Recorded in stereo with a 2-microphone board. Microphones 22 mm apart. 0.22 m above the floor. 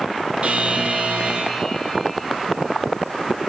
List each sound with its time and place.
0.4 s a buzzer: 65° right (ahead or behind), 0.7 m